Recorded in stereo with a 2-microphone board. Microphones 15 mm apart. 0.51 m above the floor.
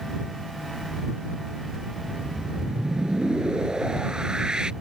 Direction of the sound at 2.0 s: 65° right (ahead or behind).